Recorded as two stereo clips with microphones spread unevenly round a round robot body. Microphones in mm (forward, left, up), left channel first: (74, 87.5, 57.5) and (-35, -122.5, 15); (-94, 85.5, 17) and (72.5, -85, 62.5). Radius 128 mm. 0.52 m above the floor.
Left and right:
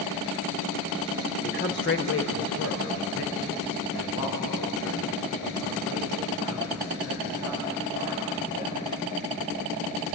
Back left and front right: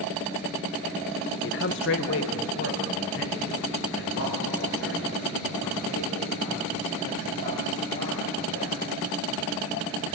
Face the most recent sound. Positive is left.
turn(degrees=95)